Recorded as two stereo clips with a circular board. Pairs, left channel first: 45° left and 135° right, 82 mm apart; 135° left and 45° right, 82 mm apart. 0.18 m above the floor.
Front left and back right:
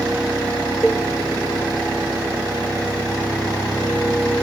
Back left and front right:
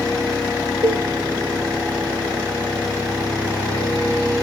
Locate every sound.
0.8 s a cowbell: 40° right, 1.1 m